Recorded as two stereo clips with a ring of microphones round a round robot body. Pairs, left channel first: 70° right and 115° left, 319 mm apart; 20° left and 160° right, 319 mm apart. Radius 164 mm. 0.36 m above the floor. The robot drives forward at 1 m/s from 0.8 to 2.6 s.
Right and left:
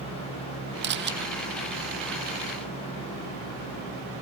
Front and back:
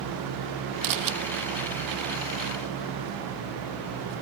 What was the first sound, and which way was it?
A camera shutter, 170° left.